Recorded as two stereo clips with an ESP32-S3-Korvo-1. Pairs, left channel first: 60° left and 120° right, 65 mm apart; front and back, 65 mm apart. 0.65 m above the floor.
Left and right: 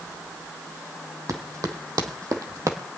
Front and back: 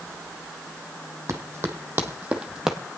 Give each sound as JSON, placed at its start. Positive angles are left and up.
{"t": 1.3, "sound": "running footsteps", "azimuth_deg": -140, "distance_m": 1.9}